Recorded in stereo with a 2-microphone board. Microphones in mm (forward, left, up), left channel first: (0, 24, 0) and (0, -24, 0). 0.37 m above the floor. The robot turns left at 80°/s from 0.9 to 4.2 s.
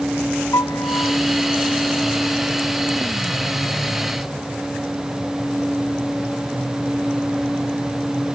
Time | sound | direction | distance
0.5 | a piano | 80° left | ?